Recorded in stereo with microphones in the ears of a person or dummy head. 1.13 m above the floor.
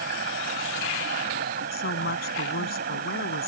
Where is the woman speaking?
45° left (ahead or behind).